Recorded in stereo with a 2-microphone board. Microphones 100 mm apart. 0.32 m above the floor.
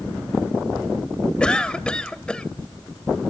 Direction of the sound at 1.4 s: 10° left (ahead or behind).